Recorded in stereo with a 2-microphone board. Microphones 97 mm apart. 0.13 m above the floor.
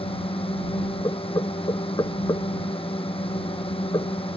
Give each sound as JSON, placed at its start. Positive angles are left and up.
{"t": 0.0, "sound": "a drone", "side_deg": 70}
{"t": 1.0, "sound": "knocking", "side_deg": 45}